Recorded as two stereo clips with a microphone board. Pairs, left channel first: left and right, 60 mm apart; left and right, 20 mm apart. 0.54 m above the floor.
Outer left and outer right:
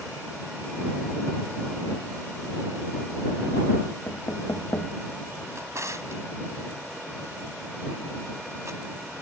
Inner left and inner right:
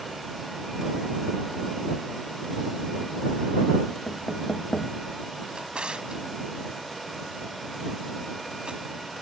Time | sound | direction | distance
4.1 | knocking | 60° left (ahead or behind) | ?
5.5 | a drawer | 60° right (ahead or behind) | ?